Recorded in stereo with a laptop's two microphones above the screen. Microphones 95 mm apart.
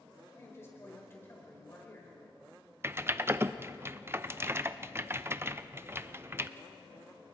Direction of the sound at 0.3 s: 25° left (ahead or behind).